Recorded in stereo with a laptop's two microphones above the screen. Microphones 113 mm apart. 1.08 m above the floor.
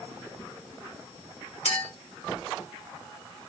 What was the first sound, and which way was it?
A clink, 80° left.